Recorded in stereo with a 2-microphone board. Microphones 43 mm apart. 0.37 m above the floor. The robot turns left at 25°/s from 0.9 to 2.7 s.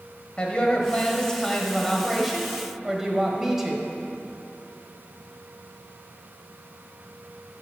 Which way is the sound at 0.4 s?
30° left.